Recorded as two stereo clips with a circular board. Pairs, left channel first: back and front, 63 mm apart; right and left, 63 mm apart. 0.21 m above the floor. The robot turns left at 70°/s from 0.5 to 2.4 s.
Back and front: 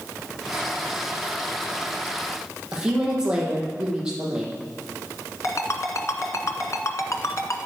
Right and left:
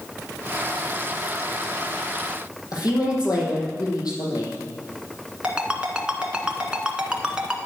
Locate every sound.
2.7 s a woman speaking: 75° right, 6 m
5.4 s a ringtone: 160° left, 1.8 m